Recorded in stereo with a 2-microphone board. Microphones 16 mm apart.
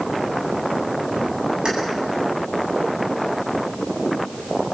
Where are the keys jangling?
65° right (ahead or behind), 8.5 m.